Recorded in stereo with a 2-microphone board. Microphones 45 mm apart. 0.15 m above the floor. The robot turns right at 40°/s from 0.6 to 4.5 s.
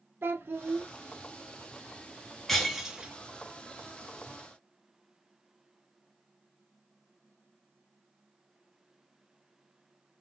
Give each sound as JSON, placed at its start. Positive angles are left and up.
{"t": 0.2, "sound": "a child speaking", "side_deg": -45, "distance_m": 0.8}
{"t": 2.5, "sound": "breaking glass", "side_deg": 5, "distance_m": 1.1}